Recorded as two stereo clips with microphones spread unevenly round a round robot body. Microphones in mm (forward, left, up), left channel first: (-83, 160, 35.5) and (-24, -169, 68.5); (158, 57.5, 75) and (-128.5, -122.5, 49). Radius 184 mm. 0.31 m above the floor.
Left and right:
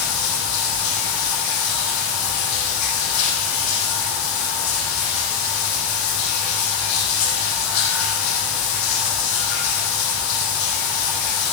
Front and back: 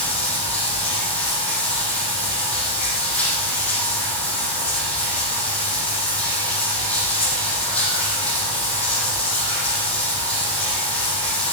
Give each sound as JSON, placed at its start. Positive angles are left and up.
{"t": 0.0, "sound": "running water", "azimuth_deg": 120, "distance_m": 5.5}